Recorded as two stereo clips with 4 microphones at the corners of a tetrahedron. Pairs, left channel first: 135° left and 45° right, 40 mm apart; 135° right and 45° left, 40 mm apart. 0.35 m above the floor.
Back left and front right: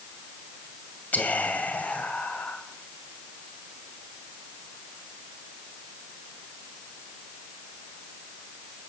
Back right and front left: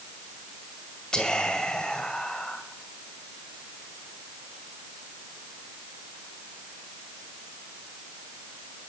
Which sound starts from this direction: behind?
Whispering, at 1.1 s.